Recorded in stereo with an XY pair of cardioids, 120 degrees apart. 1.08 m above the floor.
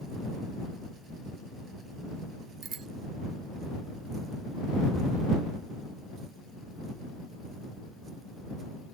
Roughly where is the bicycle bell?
Ahead right.